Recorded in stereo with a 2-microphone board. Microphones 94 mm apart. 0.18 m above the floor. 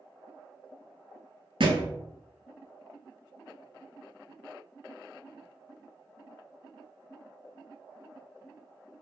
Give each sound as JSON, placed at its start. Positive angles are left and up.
{"t": 1.6, "sound": "a thud", "side_deg": -65, "distance_m": 0.9}